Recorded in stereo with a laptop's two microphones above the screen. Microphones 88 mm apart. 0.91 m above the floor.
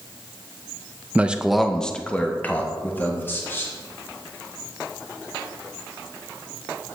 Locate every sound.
1.1 s a man speaking: 15° right (ahead or behind), 0.6 m; by 3.7 s 25° left (ahead or behind), 1.9 m